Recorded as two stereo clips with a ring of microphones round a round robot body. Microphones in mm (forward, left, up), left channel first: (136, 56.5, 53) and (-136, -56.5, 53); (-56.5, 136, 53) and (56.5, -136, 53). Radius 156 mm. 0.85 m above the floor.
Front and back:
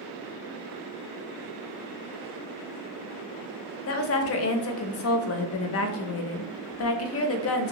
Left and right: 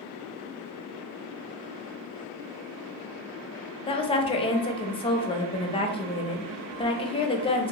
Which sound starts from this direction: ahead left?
A woman speaking, at 3.9 s.